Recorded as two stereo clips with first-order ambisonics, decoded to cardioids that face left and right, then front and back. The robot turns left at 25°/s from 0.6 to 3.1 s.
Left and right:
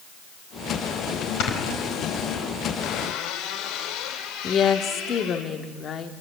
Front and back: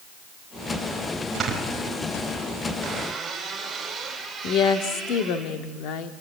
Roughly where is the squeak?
Behind left.